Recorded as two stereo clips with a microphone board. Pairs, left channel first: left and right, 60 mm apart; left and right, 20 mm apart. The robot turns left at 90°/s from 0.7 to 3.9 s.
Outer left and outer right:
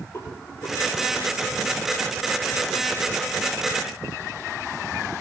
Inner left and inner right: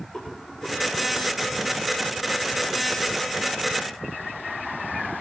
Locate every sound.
0.1 s a rattle: 35° left (ahead or behind), 9.5 m; by 0.9 s 50° left (ahead or behind), 9.5 m